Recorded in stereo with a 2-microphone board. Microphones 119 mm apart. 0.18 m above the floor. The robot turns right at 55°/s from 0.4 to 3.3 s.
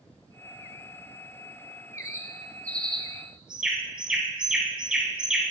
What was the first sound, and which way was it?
A bird, 30° left (ahead or behind).